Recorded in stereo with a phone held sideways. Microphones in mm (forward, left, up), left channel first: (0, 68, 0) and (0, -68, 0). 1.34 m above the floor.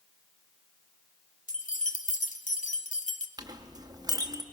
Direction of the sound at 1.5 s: 70° left (ahead or behind).